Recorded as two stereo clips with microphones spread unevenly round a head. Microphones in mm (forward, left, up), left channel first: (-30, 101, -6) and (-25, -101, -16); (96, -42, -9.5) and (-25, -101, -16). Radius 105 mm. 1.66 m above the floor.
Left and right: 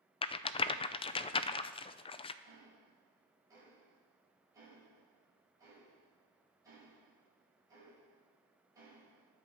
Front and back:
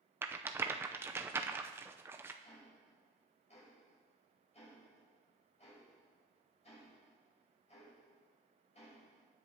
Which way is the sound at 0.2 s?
135° left.